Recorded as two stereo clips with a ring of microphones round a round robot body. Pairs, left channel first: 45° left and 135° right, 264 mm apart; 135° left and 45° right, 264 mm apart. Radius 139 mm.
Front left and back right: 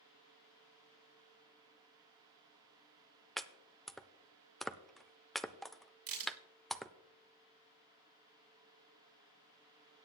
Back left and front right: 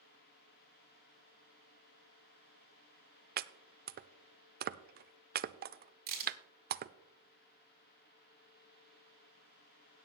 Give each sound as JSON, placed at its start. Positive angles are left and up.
{"t": 3.4, "sound": "chopping", "azimuth_deg": -45, "distance_m": 0.5}
{"t": 6.1, "sound": "a crack", "azimuth_deg": -100, "distance_m": 7.0}